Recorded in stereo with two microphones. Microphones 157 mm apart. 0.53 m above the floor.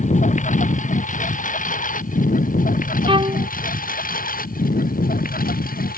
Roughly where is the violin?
Right.